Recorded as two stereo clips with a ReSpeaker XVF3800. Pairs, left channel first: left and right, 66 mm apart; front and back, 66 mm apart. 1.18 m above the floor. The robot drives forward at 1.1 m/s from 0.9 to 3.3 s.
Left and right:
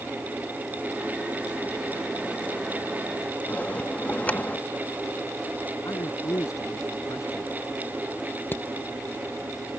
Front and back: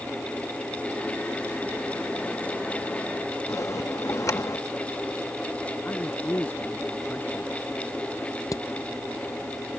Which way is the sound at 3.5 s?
25° left.